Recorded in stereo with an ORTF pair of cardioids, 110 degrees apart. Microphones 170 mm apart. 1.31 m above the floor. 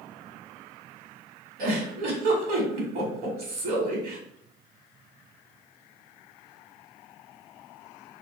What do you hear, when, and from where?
1.6 s a giggle: 55° right, 1.1 m